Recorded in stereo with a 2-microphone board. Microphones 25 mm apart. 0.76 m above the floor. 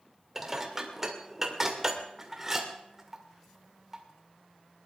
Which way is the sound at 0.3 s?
10° right (ahead or behind).